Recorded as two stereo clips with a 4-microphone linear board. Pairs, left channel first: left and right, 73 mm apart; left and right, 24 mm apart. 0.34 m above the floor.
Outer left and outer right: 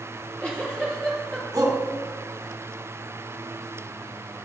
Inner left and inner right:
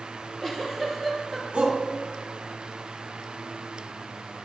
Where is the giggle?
15° left (ahead or behind), 3.5 m.